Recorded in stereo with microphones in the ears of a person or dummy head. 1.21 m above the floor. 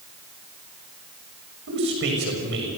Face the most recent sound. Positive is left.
turn(degrees=-60)  # may be behind; listen again after turning